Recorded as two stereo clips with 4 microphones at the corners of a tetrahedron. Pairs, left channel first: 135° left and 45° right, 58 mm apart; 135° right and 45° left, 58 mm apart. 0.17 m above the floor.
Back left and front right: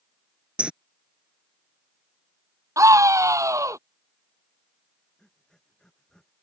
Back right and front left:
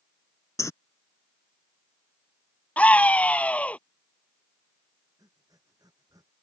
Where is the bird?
115° right.